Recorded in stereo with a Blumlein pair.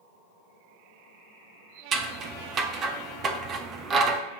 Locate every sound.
1.9 s scissors: 25° right, 0.9 m